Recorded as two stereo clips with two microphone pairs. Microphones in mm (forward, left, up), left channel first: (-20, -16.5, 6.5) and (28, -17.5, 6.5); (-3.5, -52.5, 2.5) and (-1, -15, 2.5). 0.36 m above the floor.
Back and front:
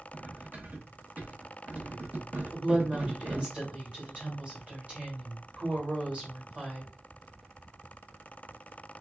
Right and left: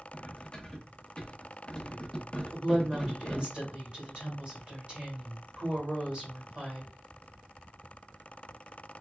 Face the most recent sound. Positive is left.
turn(degrees=45)